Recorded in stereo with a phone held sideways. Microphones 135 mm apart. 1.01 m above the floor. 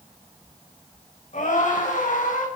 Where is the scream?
65° left (ahead or behind), 4.5 m.